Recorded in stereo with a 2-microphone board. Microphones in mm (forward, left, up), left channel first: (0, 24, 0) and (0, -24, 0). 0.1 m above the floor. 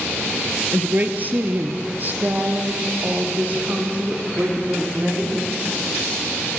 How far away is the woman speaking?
About 1.4 m.